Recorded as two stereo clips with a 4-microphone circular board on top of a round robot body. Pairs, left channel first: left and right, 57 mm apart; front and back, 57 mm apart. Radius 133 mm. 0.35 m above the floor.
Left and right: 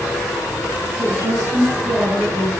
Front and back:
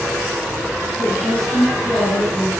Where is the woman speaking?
80° right, 8.5 m; by 2.5 s 75° right, 7 m.